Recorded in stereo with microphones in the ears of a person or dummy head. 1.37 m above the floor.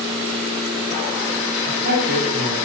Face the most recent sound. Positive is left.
turn(degrees=-55)  # may be behind; listen again after turning